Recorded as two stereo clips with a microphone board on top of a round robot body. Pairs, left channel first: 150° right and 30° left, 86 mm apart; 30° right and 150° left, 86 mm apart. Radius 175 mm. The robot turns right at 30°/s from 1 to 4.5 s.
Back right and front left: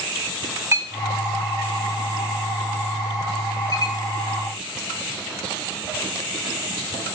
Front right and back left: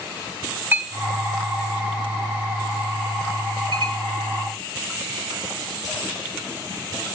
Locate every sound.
0.7 s a clink: 85° left, 4 m; by 4.0 s 175° left, 4 m